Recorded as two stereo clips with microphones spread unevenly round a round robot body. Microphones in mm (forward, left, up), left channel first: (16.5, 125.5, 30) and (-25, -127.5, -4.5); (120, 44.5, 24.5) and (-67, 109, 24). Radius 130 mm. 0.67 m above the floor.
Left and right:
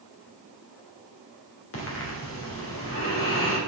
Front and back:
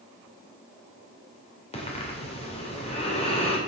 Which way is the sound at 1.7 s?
40° left.